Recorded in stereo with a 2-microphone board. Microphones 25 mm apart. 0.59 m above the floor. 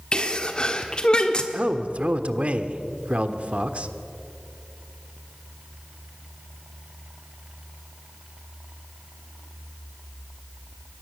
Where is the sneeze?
35° left (ahead or behind), 1.3 m.